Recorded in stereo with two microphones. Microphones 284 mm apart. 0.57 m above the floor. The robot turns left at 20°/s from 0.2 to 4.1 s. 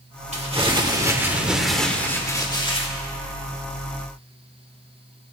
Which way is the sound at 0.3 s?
155° right.